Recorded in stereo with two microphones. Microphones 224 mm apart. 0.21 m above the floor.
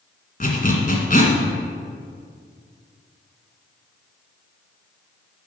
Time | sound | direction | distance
0.4 | a zipper | 40° left (ahead or behind) | 1.8 m